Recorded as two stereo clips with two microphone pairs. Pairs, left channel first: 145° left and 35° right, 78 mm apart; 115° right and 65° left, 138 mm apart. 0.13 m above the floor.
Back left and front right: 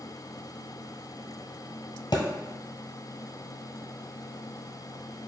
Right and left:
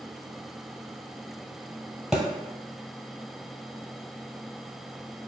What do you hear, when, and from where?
2.1 s a thud: 155° left, 1.2 m